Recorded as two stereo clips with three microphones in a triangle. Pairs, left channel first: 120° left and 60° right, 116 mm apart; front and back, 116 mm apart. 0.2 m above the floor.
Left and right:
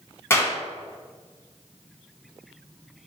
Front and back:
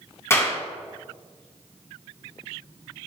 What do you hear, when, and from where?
0.3 s a clap: 60° left, 1.5 m